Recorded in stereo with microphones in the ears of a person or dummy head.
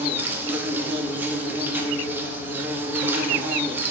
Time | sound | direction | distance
0.0 | an insect | 10° right (ahead or behind) | 0.9 m